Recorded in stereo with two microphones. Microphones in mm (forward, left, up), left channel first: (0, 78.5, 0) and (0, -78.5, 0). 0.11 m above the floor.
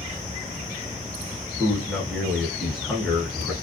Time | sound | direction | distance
1.6 | a man speaking | centre (ahead or behind) | 1.4 m